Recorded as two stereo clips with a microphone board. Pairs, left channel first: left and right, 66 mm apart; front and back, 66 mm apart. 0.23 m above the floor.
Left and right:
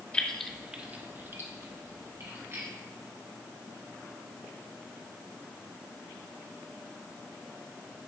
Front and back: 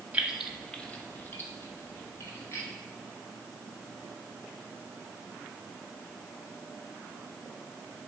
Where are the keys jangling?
135° left, 0.7 m; by 2.7 s 45° right, 2.5 m.